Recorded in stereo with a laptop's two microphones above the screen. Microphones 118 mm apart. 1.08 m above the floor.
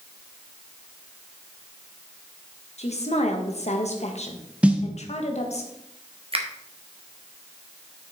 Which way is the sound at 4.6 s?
10° right (ahead or behind).